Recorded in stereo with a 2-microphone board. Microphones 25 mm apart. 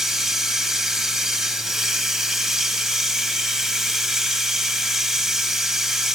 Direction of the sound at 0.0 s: 10° right (ahead or behind).